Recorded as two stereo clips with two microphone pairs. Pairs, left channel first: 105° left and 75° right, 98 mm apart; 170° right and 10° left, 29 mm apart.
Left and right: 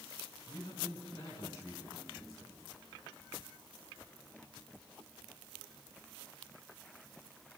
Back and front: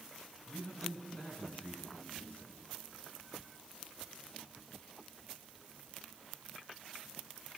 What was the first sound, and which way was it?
A man speaking, 165° left.